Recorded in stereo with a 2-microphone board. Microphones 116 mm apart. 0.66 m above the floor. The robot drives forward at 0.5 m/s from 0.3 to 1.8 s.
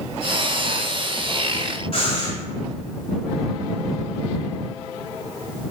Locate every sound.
1.9 s breathing: 50° left (ahead or behind), 1.1 m